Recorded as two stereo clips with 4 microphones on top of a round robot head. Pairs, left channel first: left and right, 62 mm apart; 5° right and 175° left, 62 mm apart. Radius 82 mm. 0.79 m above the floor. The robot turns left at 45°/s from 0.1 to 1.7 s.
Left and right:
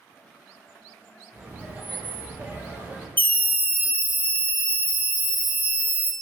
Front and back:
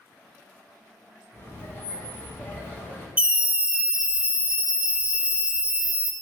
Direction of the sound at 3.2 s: 120° left.